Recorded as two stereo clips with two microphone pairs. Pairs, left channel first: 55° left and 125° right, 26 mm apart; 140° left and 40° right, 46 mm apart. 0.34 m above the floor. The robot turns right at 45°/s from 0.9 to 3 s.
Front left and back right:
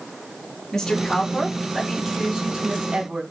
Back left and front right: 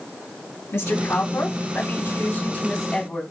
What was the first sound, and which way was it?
A woman speaking, 125° left.